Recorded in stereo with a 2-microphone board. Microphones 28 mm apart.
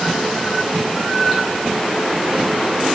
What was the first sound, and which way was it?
Only background noise.